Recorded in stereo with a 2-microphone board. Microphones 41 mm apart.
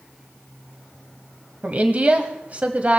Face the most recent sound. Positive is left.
turn(degrees=-35)  # may be behind; listen again after turning